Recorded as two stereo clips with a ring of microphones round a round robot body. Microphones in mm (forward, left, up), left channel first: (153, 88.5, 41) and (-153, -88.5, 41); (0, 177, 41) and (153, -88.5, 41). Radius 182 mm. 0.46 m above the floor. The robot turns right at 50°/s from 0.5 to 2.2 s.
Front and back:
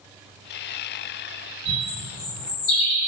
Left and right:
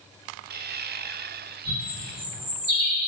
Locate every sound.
1.6 s a bird: 55° right, 1.5 m; by 3.1 s 25° right, 1.5 m